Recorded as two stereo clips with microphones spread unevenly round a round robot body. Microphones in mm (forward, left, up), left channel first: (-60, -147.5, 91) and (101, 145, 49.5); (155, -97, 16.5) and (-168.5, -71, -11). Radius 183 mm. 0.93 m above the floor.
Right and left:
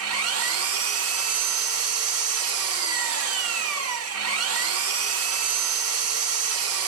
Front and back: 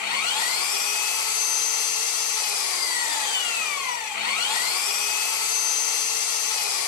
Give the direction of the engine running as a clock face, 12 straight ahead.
12 o'clock.